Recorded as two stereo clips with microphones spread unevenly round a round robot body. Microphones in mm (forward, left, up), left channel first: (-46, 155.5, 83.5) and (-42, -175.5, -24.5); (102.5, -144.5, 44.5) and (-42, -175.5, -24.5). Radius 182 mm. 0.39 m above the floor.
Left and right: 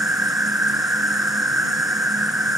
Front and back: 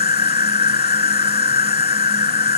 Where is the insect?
Straight ahead.